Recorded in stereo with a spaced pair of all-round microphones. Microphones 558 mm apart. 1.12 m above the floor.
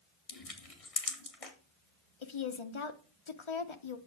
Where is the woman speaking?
55° left (ahead or behind), 0.9 m.